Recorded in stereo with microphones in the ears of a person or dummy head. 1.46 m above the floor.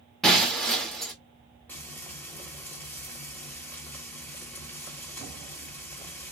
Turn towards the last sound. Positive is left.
turn(degrees=10)  # may be behind; listen again after turning